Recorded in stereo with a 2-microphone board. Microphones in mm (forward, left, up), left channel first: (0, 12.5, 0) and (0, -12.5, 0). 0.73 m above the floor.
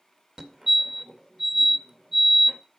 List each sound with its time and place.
0.4 s a fire alarm: 20° right (ahead or behind), 1.8 m